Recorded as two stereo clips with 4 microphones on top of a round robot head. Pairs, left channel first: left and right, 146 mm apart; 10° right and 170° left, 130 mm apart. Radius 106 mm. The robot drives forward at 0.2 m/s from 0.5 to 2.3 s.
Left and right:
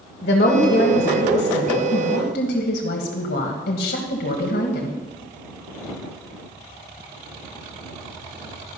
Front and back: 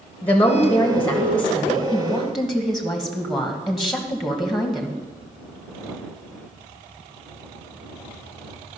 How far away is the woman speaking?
About 1.4 m.